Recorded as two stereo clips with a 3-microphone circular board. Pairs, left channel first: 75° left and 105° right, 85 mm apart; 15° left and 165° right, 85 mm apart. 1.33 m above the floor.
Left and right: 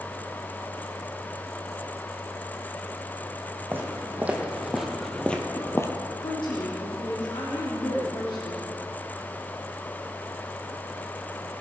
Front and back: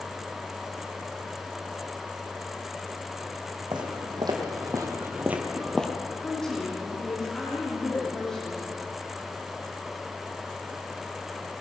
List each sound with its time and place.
3.7 s footsteps: 170° right, 3 m; by 5.9 s 85° left, 1.5 m
6.2 s a woman speaking: 100° left, 3.5 m